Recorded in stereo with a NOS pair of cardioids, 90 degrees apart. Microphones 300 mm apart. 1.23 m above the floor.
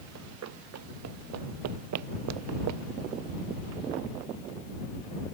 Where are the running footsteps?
65° right; by 4.1 s 80° right.